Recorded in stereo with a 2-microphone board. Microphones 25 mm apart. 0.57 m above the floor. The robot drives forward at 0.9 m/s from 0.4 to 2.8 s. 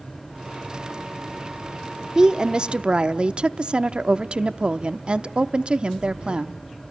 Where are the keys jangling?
No keys jangling in this recording.